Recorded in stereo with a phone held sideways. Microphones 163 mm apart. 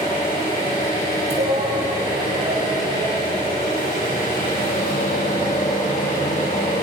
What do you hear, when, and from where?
0.0 s an engine running: 55° left (ahead or behind), 7.5 m
1.3 s a shout: 70° right (ahead or behind), 4.5 m